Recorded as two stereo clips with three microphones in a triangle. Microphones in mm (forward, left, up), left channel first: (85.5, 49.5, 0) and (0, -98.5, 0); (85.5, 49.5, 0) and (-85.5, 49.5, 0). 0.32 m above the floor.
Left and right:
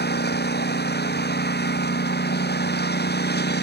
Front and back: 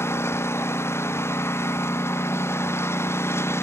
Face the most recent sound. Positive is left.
turn(degrees=75)